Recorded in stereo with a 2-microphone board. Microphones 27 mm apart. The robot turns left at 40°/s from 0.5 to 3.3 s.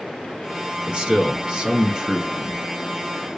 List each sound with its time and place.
0.8 s a man speaking: 90° right, 1.2 m; by 2.7 s 165° right, 1.2 m